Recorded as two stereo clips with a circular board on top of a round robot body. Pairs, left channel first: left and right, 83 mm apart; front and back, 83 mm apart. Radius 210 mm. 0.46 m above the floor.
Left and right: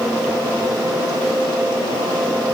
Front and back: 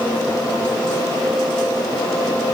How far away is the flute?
I don't hear a flute.